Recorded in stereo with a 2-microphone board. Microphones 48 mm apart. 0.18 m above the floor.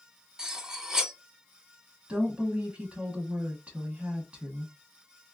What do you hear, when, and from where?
0.4 s cutlery clinking: 15° right (ahead or behind), 0.7 m
2.1 s a woman speaking: 25° right (ahead or behind), 1.9 m